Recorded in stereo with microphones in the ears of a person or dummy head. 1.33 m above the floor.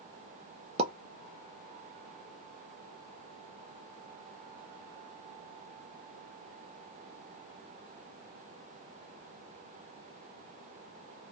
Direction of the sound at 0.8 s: 25° right (ahead or behind).